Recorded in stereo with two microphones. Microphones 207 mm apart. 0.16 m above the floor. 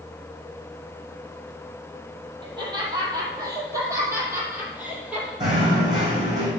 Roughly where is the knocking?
Right.